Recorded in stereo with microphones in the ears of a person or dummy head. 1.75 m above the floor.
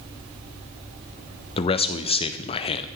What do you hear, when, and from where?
1.6 s a man speaking: 30° left (ahead or behind), 0.6 m